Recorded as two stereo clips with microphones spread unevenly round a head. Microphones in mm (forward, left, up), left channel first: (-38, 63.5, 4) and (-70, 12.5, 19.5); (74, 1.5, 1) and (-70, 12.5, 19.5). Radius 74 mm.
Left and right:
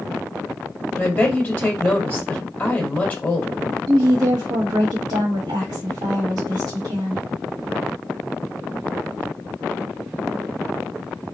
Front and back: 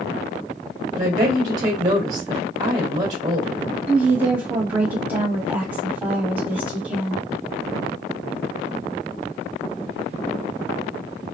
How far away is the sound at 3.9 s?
About 1.4 m.